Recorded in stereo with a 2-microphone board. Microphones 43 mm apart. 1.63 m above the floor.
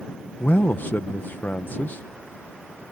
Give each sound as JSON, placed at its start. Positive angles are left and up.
{"t": 0.4, "sound": "a man speaking", "side_deg": 50}